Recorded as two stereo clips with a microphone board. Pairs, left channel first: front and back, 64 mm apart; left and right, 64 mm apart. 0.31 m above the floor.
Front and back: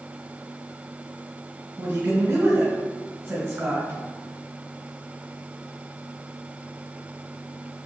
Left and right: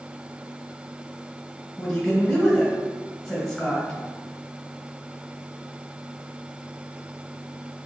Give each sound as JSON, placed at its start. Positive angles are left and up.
{"t": 1.8, "sound": "a woman speaking", "azimuth_deg": 170, "distance_m": 1.8}